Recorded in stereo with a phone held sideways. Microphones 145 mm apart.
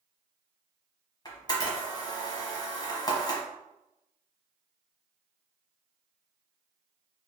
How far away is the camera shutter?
About 1.1 m.